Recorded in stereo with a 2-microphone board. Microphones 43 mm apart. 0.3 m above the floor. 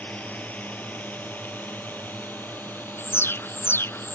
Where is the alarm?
70° left (ahead or behind).